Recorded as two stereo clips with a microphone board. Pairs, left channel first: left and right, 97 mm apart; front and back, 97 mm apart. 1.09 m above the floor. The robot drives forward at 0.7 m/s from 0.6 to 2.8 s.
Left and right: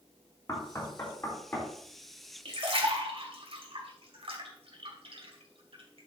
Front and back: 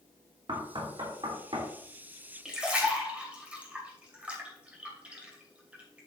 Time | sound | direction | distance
0.5 | knocking | 145° left | 2.5 m
2.5 | a splash | 95° right | 2.5 m